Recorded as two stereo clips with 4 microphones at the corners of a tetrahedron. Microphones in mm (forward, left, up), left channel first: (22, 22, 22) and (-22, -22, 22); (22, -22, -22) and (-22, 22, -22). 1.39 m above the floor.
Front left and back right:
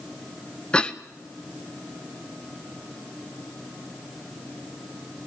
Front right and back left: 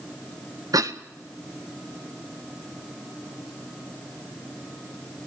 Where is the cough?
120° left, 1.4 m.